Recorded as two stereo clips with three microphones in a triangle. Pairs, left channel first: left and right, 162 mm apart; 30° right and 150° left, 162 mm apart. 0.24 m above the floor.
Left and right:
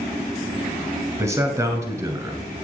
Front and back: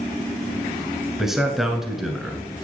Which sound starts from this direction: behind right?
A man speaking, at 1.2 s.